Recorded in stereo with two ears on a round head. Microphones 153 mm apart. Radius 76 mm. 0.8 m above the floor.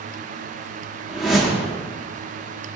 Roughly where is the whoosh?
Centre.